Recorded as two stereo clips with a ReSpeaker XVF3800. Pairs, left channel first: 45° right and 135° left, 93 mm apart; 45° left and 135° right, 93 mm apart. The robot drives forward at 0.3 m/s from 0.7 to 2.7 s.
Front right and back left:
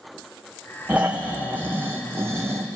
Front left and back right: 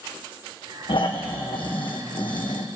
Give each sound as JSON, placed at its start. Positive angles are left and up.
{"t": 0.9, "sound": "snoring", "azimuth_deg": 60, "distance_m": 1.9}